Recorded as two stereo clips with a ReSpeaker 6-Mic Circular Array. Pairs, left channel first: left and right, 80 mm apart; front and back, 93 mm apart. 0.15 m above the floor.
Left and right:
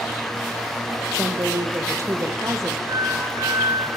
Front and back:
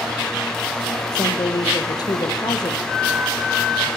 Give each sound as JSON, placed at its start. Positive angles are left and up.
{"t": 1.1, "sound": "a woman speaking", "azimuth_deg": -40, "distance_m": 4.0}
{"t": 2.9, "sound": "a flute", "azimuth_deg": -80, "distance_m": 2.5}